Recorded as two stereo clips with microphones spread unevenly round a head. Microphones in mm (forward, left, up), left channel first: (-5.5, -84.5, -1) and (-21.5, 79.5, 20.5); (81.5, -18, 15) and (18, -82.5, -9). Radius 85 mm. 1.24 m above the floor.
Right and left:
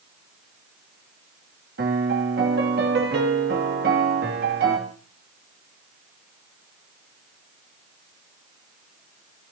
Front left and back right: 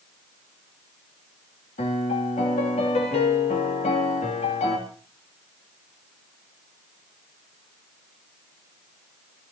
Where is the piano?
60° left, 3 m.